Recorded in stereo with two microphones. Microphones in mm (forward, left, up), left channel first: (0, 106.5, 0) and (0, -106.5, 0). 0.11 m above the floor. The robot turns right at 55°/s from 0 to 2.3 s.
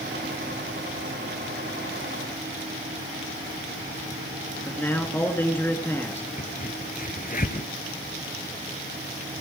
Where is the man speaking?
10° left (ahead or behind), 1.5 m.